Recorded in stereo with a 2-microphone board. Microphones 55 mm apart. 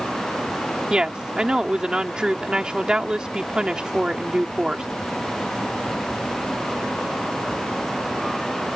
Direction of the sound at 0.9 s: 15° right (ahead or behind).